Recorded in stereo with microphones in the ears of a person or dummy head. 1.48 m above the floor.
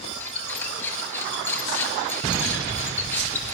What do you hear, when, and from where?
0.2 s a squeak: 15° left (ahead or behind), 4 m